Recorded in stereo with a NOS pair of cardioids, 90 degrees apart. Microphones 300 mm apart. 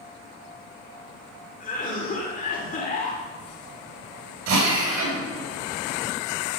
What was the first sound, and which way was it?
A cough, 25° left.